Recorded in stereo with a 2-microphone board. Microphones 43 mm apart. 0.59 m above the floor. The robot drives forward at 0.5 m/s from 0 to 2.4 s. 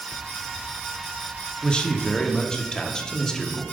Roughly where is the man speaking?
Left.